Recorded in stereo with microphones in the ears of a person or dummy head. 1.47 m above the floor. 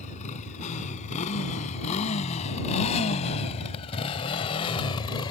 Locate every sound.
0.0 s a motorcycle: 55° left (ahead or behind); by 5.3 s 40° left (ahead or behind)